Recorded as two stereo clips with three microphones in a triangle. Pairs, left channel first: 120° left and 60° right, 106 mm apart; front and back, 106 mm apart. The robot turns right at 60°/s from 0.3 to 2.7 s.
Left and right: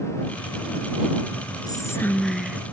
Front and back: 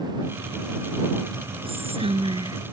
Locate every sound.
1.7 s whispering: 165° left; by 2.6 s 135° right